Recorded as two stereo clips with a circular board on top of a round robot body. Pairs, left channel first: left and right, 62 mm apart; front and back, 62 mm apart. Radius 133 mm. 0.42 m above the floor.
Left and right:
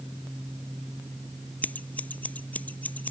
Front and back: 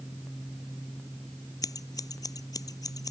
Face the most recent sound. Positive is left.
turn(degrees=20)